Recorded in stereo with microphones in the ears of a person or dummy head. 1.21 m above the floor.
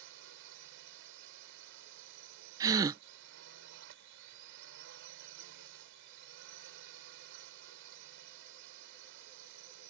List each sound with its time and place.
0.0 s a drone: 65° right (ahead or behind)
2.6 s a gasp: 15° right (ahead or behind)